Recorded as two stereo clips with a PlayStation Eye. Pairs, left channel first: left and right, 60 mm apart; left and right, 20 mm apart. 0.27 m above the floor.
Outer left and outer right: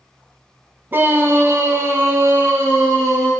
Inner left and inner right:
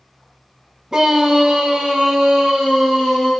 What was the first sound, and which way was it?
A scream, 35° right (ahead or behind).